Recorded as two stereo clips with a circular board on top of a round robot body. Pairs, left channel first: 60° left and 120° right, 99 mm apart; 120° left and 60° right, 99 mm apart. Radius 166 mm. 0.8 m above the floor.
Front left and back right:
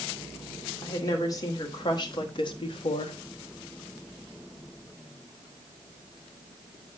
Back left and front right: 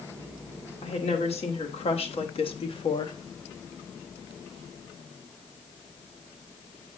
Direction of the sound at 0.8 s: 115° left.